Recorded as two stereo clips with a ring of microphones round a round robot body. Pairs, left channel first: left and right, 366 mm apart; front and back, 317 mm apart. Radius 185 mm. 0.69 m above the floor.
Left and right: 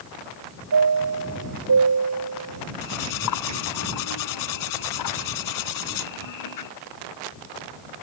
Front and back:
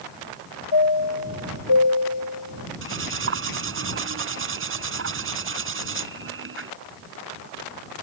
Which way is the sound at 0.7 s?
40° right.